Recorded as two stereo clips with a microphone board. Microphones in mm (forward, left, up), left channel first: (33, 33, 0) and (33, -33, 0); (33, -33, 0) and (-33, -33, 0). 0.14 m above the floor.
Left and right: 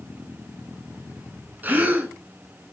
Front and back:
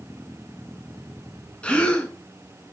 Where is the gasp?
60° right, 0.8 m.